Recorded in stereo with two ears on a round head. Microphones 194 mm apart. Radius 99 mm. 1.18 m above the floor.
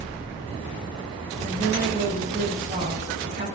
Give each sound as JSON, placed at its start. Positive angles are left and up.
{"t": 1.4, "sound": "a woman speaking", "side_deg": -25, "distance_m": 9.5}